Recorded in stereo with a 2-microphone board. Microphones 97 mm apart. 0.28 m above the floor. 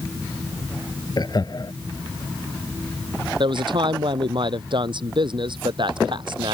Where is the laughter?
45° left (ahead or behind).